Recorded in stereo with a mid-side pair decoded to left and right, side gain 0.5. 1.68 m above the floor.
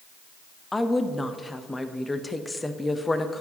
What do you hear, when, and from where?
0.7 s a woman speaking: 15° left, 0.7 m